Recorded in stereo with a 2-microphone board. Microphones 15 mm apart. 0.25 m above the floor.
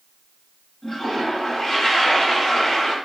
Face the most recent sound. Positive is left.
turn(degrees=20)  # may be behind; listen again after turning